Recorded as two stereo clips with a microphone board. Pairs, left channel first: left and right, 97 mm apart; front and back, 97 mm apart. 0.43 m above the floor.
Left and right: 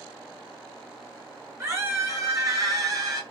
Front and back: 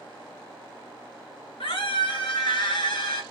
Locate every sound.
1.6 s a scream: 30° right, 6.5 m; by 3.2 s 40° right, 5.5 m